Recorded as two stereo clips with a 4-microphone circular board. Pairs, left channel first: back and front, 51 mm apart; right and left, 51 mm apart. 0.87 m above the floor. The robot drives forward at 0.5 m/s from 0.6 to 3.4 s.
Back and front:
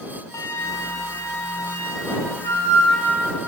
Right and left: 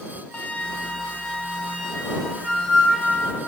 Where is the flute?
155° right, 0.7 m; by 3.3 s 175° right, 2.0 m.